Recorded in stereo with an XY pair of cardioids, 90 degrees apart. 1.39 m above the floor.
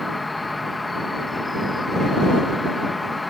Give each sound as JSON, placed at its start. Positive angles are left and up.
{"t": 0.0, "sound": "an insect", "azimuth_deg": 20}